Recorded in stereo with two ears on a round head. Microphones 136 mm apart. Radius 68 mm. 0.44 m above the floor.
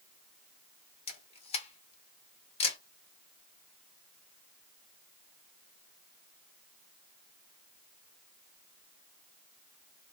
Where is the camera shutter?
40° left (ahead or behind), 0.8 m.